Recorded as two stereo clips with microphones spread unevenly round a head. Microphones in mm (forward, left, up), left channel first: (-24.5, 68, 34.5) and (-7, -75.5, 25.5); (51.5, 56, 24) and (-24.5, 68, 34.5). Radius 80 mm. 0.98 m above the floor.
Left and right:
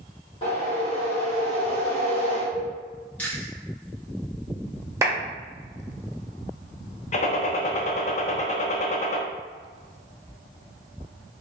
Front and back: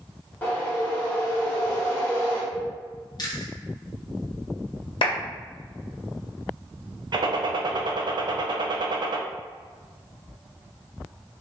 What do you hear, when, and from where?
0.4 s a whoosh: 45° left, 1.3 m
3.2 s chewing: 15° left, 1.0 m
5.0 s a clap: 10° right, 1.1 m
7.1 s a gunshot: 140° left, 0.5 m